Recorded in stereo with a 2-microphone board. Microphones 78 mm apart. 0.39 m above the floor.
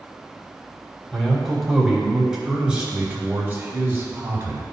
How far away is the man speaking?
About 2.5 m.